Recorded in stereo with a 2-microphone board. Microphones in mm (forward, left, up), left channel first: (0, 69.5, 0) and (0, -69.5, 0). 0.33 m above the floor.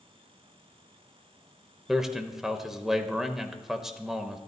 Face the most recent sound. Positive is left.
turn(degrees=-5)  # may be behind; listen again after turning